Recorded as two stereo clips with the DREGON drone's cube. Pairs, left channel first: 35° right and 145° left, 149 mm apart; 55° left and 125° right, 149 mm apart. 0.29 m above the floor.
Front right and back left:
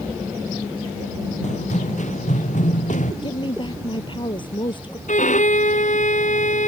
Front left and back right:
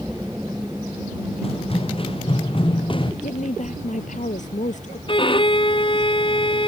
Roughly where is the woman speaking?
Ahead.